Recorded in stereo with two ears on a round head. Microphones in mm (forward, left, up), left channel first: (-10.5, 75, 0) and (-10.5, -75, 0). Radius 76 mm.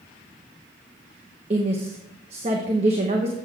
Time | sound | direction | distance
1.5 | a woman speaking | 35° right (ahead or behind) | 1.0 m